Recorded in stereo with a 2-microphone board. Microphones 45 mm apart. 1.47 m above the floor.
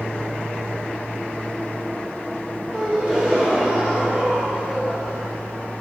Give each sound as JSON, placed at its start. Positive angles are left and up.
{"t": 2.7, "sound": "a gasp", "side_deg": -20, "distance_m": 1.5}